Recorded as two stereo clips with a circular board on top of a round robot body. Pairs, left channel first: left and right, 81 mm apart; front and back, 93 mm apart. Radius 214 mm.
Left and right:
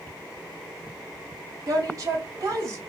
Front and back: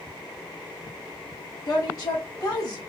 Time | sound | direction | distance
1.7 | a woman speaking | 45° right | 2 m